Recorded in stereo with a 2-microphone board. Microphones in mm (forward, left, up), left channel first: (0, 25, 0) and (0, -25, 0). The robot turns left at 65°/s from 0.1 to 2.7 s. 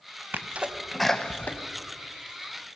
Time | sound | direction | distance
0.3 | a sneeze | 40° right (ahead or behind) | 0.6 m